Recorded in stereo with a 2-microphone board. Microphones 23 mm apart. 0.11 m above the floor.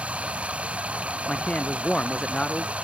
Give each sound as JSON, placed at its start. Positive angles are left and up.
{"t": 0.0, "sound": "running water", "side_deg": -75}
{"t": 1.3, "sound": "a man speaking", "side_deg": 50}